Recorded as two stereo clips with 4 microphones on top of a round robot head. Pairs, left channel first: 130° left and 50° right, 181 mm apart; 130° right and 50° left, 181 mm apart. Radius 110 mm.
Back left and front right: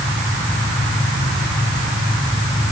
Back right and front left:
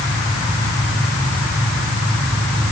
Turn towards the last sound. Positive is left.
No sound to turn to.